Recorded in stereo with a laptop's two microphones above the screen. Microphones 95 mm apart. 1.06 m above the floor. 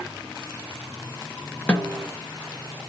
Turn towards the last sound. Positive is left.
turn(degrees=10)  # may be behind; listen again after turning